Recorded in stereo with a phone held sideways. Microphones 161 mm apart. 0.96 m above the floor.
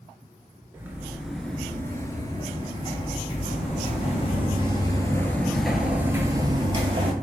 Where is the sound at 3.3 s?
50° left (ahead or behind), 1.7 m; by 7.1 s 40° right (ahead or behind), 1.3 m.